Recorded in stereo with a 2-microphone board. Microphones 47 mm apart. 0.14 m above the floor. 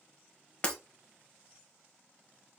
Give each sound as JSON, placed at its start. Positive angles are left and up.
{"t": 0.6, "sound": "breaking glass", "side_deg": 25, "distance_m": 1.2}